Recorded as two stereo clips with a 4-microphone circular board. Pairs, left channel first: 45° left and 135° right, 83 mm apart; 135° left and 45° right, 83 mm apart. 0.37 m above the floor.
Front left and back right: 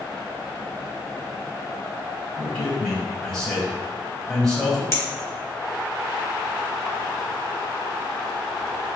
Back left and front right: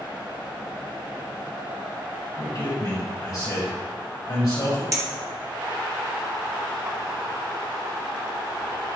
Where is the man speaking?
125° left, 1.9 m.